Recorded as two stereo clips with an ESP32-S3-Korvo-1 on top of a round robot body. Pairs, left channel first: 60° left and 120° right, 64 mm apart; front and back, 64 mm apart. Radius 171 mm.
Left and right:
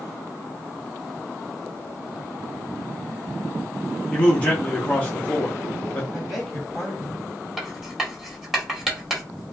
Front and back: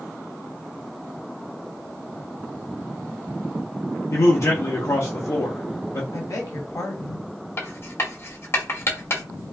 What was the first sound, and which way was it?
A man speaking, 5° right.